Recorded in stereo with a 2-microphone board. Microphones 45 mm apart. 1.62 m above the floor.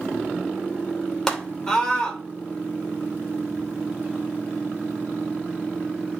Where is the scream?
10° left (ahead or behind), 3 m.